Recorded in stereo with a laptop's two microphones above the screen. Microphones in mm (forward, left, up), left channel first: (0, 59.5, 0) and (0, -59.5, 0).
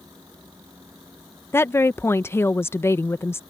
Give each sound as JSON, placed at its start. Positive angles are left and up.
{"t": 0.0, "sound": "a fan", "side_deg": -30}
{"t": 1.5, "sound": "a woman speaking", "side_deg": 25}